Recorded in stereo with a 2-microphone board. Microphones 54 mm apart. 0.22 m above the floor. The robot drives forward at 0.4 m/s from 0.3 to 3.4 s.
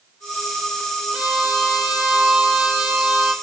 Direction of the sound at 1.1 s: 15° right (ahead or behind).